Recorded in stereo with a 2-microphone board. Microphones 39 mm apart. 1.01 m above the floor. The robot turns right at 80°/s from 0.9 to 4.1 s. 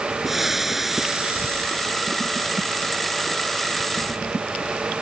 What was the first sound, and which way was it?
Frying, 175° right.